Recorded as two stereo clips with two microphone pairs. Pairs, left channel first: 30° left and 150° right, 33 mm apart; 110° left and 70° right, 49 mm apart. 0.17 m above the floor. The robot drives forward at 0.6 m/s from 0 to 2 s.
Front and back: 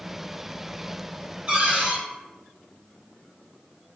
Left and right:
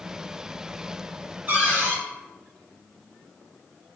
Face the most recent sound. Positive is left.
turn(degrees=-125)